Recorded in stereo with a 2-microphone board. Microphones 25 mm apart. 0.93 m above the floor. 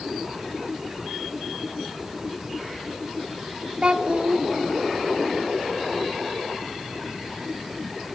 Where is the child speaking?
50° right (ahead or behind), 1.3 m.